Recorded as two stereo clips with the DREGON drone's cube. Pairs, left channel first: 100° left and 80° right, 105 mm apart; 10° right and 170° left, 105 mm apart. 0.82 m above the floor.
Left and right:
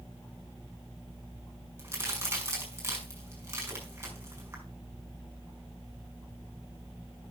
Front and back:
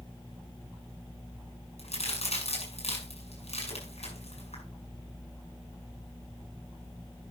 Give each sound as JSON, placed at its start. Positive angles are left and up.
{"t": 1.8, "sound": "a crack", "azimuth_deg": -15, "distance_m": 5.0}